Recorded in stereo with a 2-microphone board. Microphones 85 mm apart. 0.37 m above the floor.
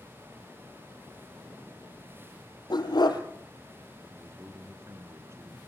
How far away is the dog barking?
About 3 m.